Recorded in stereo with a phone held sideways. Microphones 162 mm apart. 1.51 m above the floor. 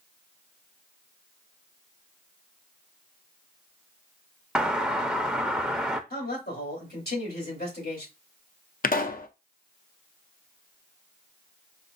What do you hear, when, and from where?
4.5 s a doorbell: 5° right (ahead or behind), 0.5 m
6.1 s a man speaking: 75° left (ahead or behind), 3 m
8.8 s a pop: 60° left (ahead or behind), 0.5 m